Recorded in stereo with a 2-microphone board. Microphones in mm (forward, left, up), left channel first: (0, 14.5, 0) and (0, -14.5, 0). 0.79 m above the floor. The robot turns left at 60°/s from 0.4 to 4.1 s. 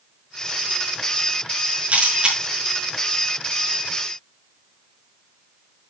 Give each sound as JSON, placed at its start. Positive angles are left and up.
{"t": 1.9, "sound": "a camera shutter", "side_deg": -55, "distance_m": 6.0}